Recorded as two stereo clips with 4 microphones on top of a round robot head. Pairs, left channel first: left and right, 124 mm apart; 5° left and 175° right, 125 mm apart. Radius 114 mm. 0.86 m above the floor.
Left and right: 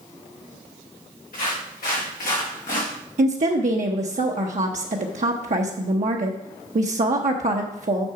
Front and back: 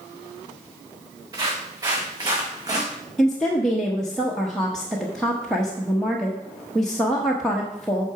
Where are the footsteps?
125° left, 5 m.